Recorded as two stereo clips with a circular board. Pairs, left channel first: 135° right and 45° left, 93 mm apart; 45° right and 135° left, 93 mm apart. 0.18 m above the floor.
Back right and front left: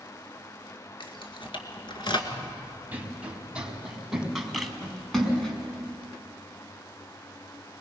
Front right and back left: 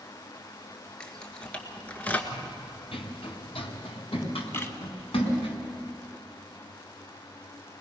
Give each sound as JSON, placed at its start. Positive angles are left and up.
{"t": 1.0, "sound": "keys jangling", "azimuth_deg": -125, "distance_m": 2.0}
{"t": 2.3, "sound": "running footsteps", "azimuth_deg": -20, "distance_m": 3.5}
{"t": 4.5, "sound": "a camera shutter", "azimuth_deg": -50, "distance_m": 1.3}